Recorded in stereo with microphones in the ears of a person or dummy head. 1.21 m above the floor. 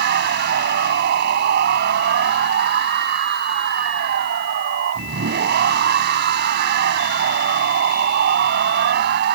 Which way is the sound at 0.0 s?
55° right (ahead or behind).